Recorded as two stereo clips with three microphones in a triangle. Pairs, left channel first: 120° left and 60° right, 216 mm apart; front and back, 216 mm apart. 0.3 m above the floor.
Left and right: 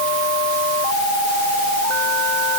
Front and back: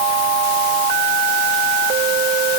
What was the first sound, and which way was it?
Only background noise.